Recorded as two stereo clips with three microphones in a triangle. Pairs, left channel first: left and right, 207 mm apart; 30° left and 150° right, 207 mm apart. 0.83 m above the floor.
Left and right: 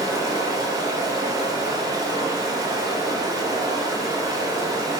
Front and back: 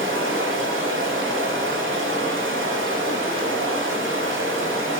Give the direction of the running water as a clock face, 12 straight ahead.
5 o'clock.